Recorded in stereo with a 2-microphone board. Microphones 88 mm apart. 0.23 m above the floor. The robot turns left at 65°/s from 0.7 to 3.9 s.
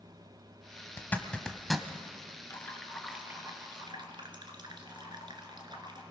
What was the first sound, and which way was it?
A zipper, 25° left (ahead or behind).